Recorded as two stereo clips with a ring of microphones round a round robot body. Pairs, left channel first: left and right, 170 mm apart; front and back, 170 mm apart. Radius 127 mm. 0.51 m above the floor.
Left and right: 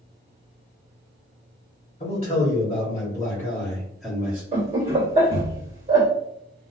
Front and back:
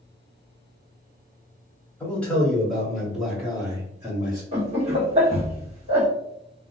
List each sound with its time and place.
2.0 s a man speaking: 75° left, 1.5 m; by 4.4 s 160° right, 1.3 m
4.5 s laughter: 135° right, 1.6 m